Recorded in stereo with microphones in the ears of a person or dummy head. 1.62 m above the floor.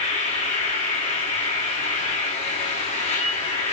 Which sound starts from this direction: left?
An insect, at 0.0 s.